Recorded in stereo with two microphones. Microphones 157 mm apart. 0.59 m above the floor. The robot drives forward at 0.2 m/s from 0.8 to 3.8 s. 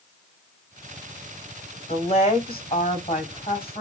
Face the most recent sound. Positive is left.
turn(degrees=35)  # may be behind; listen again after turning